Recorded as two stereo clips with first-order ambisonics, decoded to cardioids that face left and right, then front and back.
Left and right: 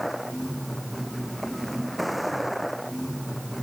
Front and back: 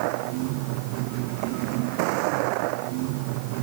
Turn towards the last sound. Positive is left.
turn(degrees=180)